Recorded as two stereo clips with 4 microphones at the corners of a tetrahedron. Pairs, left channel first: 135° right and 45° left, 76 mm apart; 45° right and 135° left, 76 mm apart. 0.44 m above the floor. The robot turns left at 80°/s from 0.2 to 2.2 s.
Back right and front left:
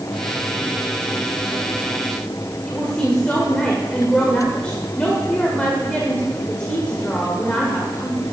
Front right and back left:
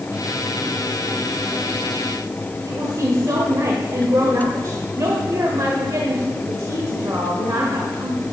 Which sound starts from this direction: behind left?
A woman speaking, at 2.7 s.